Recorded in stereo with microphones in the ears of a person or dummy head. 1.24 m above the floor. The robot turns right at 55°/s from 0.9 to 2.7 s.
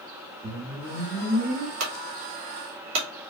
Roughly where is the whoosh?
Right.